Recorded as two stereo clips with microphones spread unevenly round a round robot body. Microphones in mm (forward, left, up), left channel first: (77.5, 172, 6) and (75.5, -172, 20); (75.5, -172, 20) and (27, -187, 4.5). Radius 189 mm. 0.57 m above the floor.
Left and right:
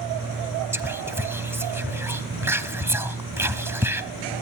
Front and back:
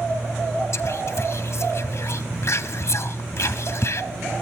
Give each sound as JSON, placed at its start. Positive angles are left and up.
{"t": 0.7, "sound": "whispering", "azimuth_deg": -5, "distance_m": 0.7}